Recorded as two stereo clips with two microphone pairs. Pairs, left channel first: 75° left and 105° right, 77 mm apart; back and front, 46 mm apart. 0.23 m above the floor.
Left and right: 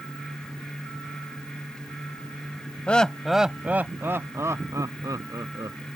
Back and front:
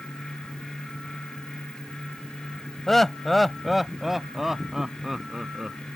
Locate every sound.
2.9 s laughter: 115° left; by 5.9 s 80° right